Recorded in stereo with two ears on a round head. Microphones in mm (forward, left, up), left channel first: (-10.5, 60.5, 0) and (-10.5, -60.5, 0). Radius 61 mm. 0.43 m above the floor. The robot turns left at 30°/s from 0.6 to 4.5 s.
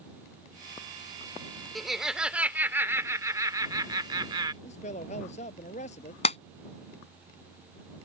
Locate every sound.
1.8 s laughter: straight ahead; by 4.5 s 85° right
4.6 s a man speaking: 50° left (ahead or behind)
6.2 s a clap: 45° left (ahead or behind)